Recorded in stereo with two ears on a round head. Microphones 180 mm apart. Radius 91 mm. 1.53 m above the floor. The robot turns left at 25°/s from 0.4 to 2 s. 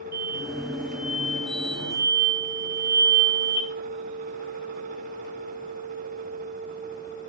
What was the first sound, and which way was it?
An explosion, 125° right.